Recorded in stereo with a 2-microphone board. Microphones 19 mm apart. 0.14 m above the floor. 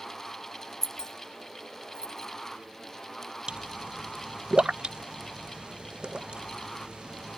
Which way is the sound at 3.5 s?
55° right (ahead or behind).